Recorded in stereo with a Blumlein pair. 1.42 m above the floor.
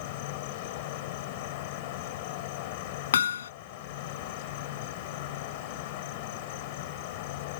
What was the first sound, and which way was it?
An insect, 50° left.